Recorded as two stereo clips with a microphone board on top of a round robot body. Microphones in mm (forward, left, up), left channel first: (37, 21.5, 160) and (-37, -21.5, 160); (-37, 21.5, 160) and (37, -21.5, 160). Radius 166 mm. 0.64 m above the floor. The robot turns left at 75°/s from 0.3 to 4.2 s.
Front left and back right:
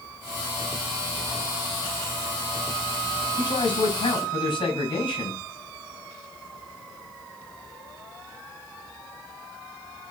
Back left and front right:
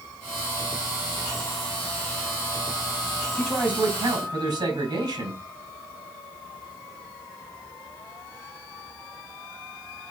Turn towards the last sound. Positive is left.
turn(degrees=5)